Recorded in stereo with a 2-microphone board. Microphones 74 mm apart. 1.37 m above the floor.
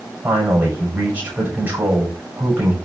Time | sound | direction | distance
0.2 | a man speaking | 25° right (ahead or behind) | 8 m